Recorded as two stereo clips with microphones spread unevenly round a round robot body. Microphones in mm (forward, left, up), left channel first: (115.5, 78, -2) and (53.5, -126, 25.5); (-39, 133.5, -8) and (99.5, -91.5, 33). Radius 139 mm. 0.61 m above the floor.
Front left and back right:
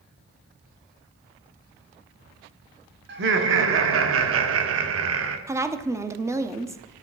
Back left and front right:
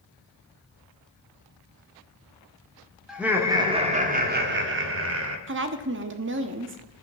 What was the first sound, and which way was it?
Laughter, 150° right.